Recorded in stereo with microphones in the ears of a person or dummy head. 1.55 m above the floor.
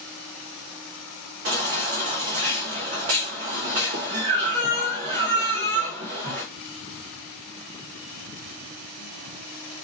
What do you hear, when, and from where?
1.4 s a baby crying: 35° right (ahead or behind), 0.6 m